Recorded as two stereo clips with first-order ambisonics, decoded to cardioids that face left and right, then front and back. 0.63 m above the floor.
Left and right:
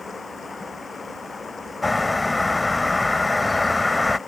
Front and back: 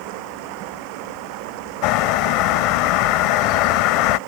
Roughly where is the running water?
Behind.